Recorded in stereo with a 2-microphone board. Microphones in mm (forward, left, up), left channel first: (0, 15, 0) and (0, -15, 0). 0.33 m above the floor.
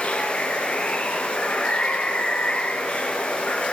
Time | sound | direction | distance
0.0 | running water | 40° left (ahead or behind) | 3.5 m